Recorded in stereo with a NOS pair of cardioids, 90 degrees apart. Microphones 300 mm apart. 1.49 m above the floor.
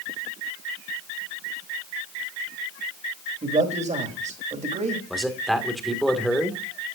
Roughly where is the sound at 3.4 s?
Ahead right.